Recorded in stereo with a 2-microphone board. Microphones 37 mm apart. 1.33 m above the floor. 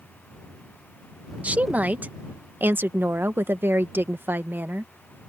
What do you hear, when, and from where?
1.4 s a woman speaking: 40° right (ahead or behind); by 4.9 s 60° right (ahead or behind)